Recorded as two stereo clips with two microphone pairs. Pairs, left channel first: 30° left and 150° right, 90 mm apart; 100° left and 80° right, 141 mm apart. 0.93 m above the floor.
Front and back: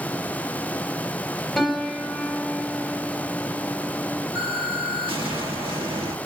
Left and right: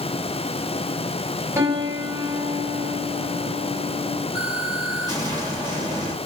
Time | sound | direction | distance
1.6 | a piano | 55° right | 0.7 m
4.3 | an explosion | 140° right | 1.5 m